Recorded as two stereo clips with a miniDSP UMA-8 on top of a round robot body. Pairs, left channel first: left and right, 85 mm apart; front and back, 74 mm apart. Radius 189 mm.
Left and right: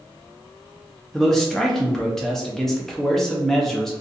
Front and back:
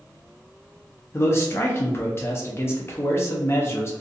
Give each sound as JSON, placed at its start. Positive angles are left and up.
{"t": 1.1, "sound": "a man speaking", "azimuth_deg": 5, "distance_m": 0.8}